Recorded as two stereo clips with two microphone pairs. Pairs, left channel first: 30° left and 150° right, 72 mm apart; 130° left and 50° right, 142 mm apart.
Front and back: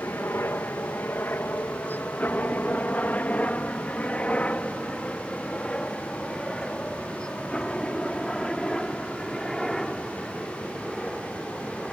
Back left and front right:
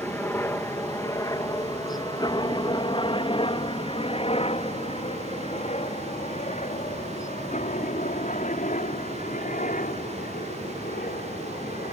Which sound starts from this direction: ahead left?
A helicopter, at 0.0 s.